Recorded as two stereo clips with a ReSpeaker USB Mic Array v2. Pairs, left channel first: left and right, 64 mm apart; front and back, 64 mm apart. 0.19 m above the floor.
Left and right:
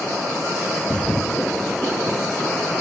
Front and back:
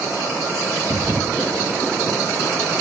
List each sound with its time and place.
0.8 s a thud: 160° left, 1.0 m